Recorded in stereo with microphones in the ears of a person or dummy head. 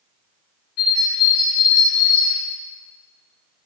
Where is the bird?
45° left (ahead or behind), 1.6 m.